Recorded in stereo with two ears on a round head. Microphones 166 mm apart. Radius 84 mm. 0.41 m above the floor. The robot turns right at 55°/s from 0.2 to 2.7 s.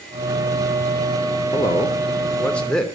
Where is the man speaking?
20° left (ahead or behind), 0.9 m; by 2.9 s 5° left (ahead or behind), 0.9 m.